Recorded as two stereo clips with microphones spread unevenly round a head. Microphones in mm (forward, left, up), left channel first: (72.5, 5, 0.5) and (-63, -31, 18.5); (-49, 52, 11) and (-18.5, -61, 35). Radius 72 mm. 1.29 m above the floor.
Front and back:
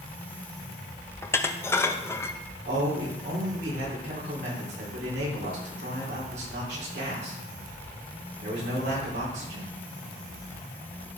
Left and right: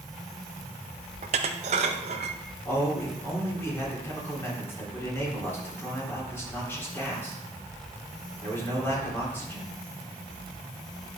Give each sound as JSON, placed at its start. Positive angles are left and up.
{"t": 1.2, "sound": "dishes clattering", "azimuth_deg": -60, "distance_m": 0.6}
{"t": 2.6, "sound": "a man speaking", "azimuth_deg": 175, "distance_m": 4.0}